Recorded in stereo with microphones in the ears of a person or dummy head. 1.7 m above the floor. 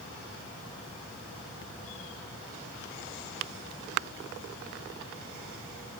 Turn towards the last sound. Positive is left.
No sound to turn to.